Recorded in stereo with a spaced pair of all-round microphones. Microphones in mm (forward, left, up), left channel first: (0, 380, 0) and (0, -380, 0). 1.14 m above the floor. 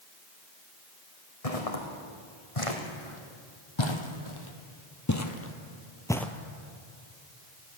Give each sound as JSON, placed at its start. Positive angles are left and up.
{"t": 1.4, "sound": "footsteps", "side_deg": 50, "distance_m": 4.0}